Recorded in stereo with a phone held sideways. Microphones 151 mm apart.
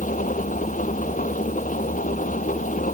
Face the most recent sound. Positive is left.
turn(degrees=60)  # may be behind; listen again after turning